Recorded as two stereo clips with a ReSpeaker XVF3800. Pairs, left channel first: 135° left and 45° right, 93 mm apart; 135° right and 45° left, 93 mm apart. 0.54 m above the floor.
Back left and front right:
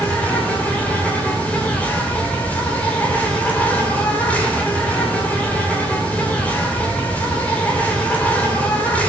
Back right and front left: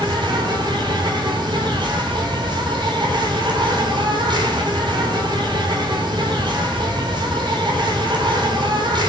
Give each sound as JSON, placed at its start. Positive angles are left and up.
{"t": 0.0, "sound": "an insect", "azimuth_deg": 65, "distance_m": 3.0}